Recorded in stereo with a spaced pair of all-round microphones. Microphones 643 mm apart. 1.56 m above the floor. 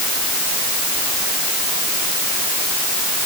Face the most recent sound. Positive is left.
No sound to turn to.